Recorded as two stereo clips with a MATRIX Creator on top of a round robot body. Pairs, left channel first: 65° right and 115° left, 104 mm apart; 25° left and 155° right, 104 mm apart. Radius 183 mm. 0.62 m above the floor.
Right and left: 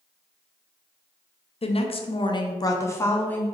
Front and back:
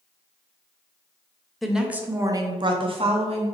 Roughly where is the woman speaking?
Ahead right.